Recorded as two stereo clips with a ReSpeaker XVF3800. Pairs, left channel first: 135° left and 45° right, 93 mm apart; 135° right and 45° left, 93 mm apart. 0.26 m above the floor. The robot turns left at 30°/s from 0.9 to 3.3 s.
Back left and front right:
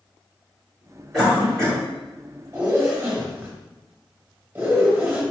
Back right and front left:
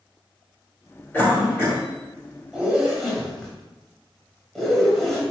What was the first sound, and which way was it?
A cough, 140° right.